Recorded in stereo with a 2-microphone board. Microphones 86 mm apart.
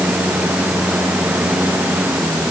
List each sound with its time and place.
Only background noise.